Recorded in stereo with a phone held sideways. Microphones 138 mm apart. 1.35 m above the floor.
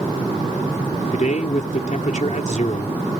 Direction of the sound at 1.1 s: 60° left (ahead or behind).